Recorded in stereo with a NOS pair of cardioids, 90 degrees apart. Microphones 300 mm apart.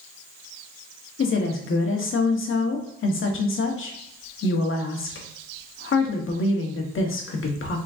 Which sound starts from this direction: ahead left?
A woman speaking, at 1.2 s.